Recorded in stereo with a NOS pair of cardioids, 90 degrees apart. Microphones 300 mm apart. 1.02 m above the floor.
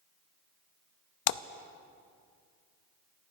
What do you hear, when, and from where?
1.3 s a splash: 65° left, 0.6 m